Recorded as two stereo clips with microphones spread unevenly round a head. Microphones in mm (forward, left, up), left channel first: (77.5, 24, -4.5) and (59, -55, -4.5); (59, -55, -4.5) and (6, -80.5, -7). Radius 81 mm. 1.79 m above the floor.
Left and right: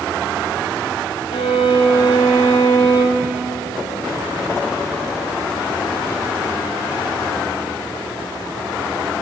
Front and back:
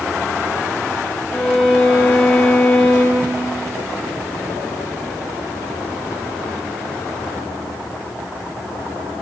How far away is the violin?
About 4.5 m.